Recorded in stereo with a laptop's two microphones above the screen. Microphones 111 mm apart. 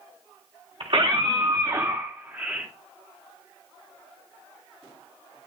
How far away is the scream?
About 2.0 m.